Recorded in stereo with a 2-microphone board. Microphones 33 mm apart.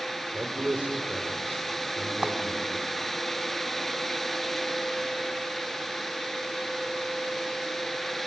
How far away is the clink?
About 1.3 m.